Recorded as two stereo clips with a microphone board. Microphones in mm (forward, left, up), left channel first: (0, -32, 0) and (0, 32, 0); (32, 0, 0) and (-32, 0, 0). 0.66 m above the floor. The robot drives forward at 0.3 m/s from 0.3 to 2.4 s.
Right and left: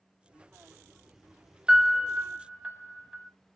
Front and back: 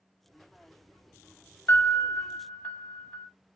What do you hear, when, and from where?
1.7 s a piano: 15° left, 0.9 m; by 3.3 s 25° left, 0.7 m